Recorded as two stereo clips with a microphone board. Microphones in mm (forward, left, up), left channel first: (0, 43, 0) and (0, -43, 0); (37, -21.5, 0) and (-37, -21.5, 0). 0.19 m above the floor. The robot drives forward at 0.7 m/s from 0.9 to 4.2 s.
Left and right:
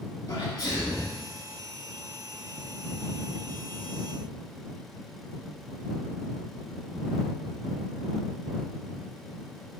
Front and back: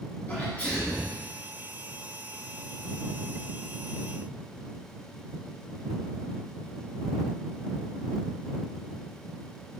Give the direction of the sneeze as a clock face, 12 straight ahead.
10 o'clock.